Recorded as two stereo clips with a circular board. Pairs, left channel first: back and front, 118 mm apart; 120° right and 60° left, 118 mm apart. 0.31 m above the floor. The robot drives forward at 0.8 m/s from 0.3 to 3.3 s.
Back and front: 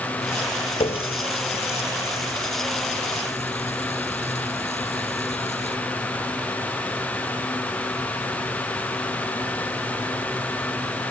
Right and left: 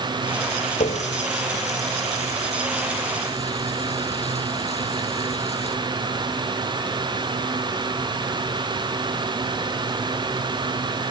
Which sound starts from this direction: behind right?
A running tap, at 0.8 s.